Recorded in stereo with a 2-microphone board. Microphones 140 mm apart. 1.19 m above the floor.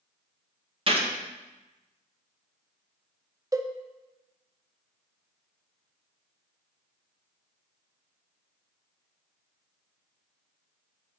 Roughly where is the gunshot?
Right.